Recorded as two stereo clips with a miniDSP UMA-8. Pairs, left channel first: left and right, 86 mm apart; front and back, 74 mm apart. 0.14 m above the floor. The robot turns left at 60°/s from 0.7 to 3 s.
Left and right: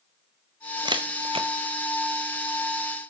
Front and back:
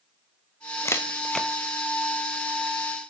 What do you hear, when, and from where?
0.8 s a camera shutter: 50° right, 1.9 m; by 1.5 s 90° right, 1.9 m